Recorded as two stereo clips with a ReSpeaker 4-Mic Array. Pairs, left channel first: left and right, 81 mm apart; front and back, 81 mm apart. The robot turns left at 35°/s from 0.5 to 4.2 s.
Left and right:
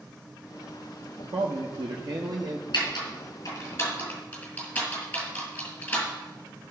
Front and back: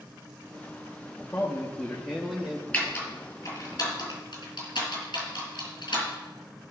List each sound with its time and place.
1.3 s a man speaking: 60° right, 0.9 m; by 2.6 s 110° right, 0.9 m
2.7 s typing on a keyboard: 75° left, 3.5 m; by 6.7 s 25° left, 3.5 m